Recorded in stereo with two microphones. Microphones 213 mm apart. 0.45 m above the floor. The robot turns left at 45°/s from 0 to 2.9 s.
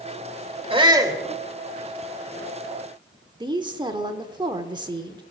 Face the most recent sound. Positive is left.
turn(degrees=-20)  # may be behind; listen again after turning